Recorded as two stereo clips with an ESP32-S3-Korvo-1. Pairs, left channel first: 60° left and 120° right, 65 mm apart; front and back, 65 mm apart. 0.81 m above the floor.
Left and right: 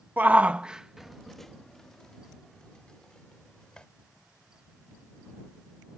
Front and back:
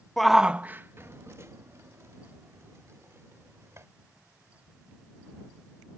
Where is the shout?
85° right; by 3.9 s 135° left.